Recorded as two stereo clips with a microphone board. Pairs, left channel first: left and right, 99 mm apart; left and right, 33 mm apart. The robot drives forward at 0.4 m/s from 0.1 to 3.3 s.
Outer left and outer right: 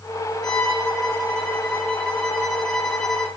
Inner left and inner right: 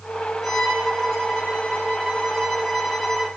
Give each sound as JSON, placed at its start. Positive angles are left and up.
{"t": 0.4, "sound": "a violin", "side_deg": 5, "distance_m": 6.0}